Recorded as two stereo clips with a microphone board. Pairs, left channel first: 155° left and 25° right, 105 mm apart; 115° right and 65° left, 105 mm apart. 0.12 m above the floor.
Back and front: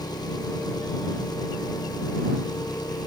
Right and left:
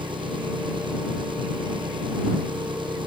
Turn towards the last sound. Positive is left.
turn(degrees=105)